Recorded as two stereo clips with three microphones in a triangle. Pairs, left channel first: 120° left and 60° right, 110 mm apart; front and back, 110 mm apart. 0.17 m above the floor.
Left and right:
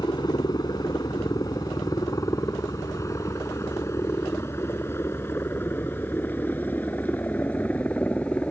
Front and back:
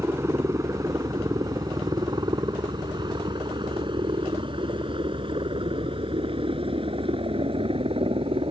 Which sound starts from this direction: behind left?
A helicopter, at 0.0 s.